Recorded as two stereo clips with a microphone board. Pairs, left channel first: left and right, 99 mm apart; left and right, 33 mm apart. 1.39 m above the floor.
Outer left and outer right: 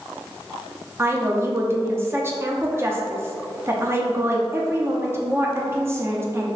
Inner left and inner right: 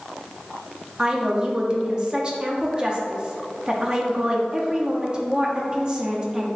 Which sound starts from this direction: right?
A woman speaking, at 1.0 s.